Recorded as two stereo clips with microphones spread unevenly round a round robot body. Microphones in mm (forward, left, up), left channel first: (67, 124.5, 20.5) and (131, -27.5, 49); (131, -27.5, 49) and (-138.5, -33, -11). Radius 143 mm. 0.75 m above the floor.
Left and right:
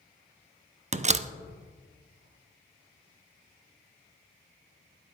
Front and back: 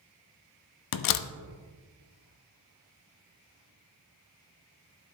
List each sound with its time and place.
0.9 s a door slam: 10° right, 0.5 m